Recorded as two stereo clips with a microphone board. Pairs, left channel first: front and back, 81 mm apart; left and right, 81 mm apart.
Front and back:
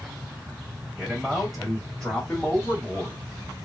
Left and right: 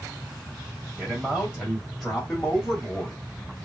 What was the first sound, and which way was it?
A man speaking, 110° right.